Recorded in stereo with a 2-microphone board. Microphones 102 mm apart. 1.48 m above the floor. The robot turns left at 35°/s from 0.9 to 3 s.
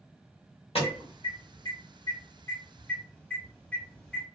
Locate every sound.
0.8 s an alarm: 70° left (ahead or behind), 1.4 m; by 4.2 s 15° left (ahead or behind), 1.4 m